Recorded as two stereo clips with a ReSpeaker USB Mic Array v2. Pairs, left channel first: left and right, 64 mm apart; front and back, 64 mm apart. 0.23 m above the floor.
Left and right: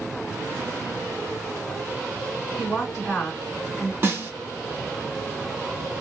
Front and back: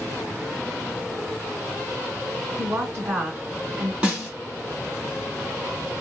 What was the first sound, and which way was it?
A woman speaking, 170° left.